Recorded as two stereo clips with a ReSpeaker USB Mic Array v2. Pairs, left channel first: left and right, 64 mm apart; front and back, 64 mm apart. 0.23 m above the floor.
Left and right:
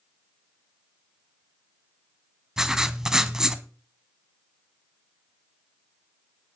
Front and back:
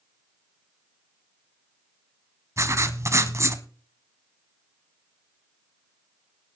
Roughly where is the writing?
Behind.